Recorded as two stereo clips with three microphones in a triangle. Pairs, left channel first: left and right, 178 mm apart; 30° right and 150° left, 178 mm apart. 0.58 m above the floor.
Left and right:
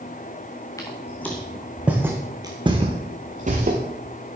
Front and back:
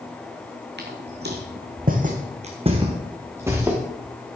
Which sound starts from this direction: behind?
Footsteps, at 0.8 s.